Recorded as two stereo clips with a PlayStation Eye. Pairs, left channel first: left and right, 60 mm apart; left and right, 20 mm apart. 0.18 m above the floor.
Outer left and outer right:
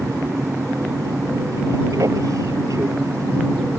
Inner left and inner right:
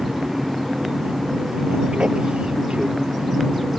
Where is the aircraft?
70° right (ahead or behind).